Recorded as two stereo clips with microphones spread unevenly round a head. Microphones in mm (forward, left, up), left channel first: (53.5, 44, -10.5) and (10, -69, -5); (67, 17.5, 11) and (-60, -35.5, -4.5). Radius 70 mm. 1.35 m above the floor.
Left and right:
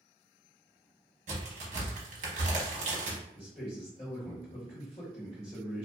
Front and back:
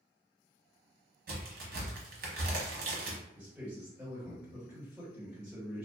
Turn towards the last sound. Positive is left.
turn(degrees=125)